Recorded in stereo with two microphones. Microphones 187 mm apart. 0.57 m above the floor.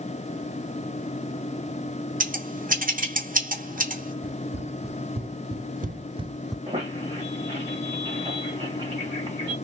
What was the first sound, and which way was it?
Scissors, 50° right (ahead or behind).